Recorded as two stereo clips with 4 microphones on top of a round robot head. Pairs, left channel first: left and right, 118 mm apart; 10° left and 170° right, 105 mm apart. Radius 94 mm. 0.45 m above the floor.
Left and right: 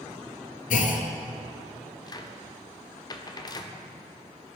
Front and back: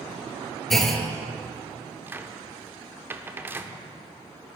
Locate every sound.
0.7 s a clunk: 100° left, 1.3 m
2.1 s a cupboard door: 130° left, 1.0 m